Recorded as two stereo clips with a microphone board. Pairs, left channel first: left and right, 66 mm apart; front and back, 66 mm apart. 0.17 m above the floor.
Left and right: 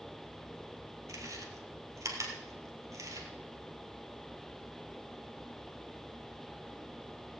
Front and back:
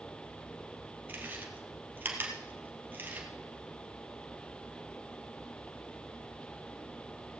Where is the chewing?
120° right, 2 m.